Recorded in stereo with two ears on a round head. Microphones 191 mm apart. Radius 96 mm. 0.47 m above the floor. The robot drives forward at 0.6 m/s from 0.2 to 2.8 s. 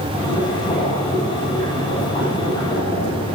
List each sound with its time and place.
0.1 s boiling: 25° left (ahead or behind), 4 m; by 3.4 s 20° left (ahead or behind), 5.5 m